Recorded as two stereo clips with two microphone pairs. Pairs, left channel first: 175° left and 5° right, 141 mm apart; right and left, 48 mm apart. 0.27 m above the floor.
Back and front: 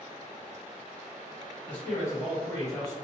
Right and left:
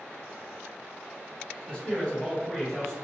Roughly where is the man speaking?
Behind right.